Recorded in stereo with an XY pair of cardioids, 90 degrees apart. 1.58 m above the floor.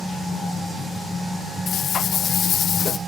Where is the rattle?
70° left, 0.8 m.